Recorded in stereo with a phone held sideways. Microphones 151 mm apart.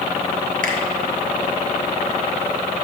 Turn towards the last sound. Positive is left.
turn(degrees=-60)  # may be behind; listen again after turning